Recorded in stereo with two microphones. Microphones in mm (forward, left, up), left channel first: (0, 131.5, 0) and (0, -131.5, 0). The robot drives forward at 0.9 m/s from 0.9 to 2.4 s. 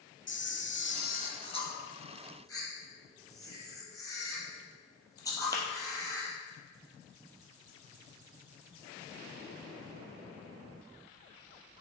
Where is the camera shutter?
40° left (ahead or behind), 0.5 m; by 6.3 s 10° left (ahead or behind), 1.7 m.